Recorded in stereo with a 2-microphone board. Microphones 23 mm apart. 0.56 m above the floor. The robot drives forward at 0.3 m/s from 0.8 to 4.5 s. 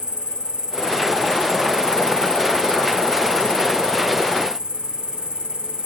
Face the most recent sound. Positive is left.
turn(degrees=-35)  # may be behind; listen again after turning